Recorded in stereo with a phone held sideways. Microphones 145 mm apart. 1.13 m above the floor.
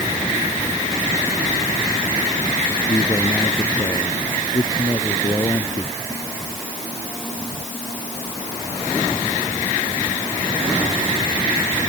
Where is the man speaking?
25° left (ahead or behind).